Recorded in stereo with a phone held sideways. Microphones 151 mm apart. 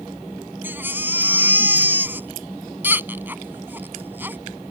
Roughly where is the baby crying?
Centre.